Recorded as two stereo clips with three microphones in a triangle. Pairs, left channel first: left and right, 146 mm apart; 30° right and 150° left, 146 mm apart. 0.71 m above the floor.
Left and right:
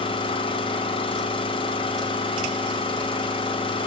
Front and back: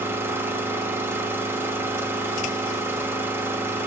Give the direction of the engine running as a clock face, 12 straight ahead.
9 o'clock.